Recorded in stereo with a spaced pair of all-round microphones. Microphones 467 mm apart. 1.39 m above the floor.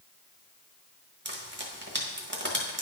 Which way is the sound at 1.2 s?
25° right (ahead or behind).